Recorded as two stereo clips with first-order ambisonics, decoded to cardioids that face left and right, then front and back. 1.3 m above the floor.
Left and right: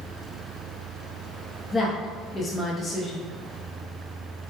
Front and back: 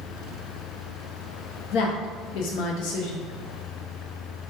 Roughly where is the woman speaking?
Ahead.